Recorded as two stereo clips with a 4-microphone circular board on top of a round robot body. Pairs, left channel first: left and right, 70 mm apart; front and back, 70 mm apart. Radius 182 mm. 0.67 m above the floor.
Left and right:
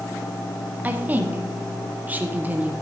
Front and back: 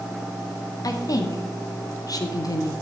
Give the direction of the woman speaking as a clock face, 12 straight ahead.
1 o'clock.